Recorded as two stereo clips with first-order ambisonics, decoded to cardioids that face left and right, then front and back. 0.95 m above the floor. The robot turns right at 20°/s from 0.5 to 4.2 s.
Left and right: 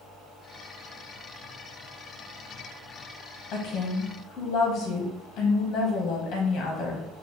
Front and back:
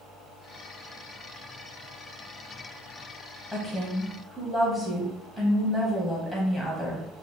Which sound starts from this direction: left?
A woman speaking, at 3.5 s.